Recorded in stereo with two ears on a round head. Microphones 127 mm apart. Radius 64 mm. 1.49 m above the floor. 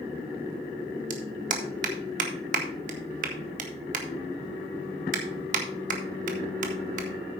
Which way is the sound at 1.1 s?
60° right (ahead or behind).